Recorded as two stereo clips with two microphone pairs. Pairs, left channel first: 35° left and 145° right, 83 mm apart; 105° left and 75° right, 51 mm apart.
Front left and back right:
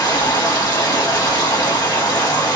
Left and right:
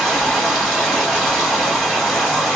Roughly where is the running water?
Ahead.